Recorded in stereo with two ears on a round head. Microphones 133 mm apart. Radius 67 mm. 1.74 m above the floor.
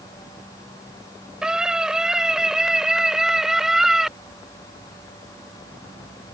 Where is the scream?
5° right (ahead or behind).